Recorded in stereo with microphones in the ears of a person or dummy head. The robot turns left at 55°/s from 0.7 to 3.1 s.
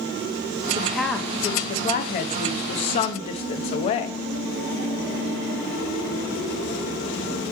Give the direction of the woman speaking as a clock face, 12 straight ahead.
6 o'clock.